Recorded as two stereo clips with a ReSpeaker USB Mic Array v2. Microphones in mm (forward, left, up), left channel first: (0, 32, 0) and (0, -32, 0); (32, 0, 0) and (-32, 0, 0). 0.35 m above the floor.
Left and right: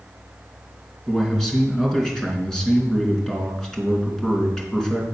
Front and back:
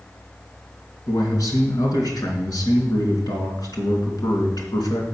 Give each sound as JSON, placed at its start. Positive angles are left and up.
{"t": 1.1, "sound": "a man speaking", "azimuth_deg": 10, "distance_m": 3.5}